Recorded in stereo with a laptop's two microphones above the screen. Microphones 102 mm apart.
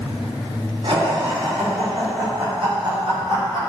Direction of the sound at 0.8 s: 60° right (ahead or behind).